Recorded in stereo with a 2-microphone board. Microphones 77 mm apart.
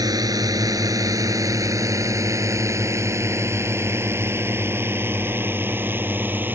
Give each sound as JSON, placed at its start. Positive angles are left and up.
{"t": 0.0, "sound": "a drone", "side_deg": -55}